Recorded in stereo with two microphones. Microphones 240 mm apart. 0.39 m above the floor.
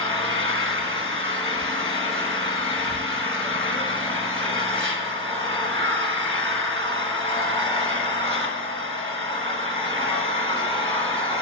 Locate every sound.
0.0 s an engine running: 55° right (ahead or behind), 1.4 m